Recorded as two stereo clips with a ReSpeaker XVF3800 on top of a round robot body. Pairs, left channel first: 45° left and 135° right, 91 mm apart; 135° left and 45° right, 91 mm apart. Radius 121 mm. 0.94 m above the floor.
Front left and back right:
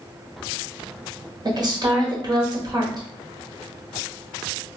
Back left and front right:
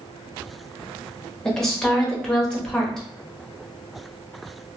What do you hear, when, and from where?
1.4 s a woman speaking: 140° right, 1.2 m